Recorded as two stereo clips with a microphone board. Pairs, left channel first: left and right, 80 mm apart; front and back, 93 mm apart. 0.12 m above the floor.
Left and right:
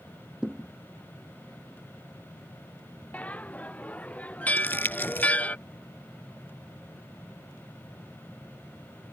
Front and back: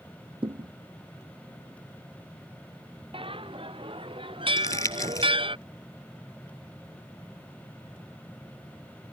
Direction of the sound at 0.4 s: 170° right.